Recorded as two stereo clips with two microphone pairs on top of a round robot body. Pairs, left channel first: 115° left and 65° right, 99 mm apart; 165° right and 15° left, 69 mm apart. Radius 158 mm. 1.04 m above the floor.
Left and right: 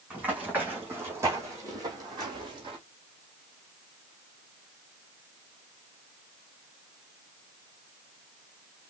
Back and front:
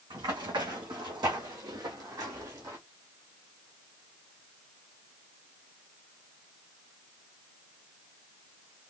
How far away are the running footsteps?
About 2.5 m.